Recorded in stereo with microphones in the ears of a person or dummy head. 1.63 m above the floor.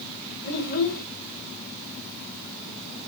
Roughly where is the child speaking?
Left.